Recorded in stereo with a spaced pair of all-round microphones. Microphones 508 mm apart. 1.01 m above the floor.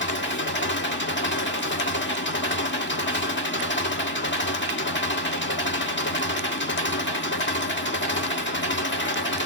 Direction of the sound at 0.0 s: 20° left (ahead or behind).